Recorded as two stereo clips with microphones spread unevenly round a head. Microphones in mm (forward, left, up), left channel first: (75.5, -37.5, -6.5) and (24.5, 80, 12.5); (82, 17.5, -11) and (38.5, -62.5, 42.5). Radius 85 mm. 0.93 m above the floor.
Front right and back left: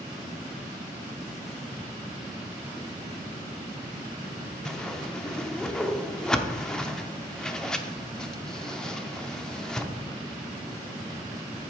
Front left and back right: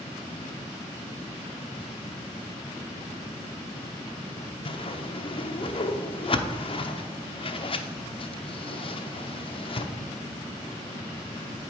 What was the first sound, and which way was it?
A whoosh, 20° left.